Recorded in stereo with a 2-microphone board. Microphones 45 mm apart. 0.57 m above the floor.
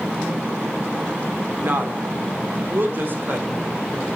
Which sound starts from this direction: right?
A woman speaking, at 1.6 s.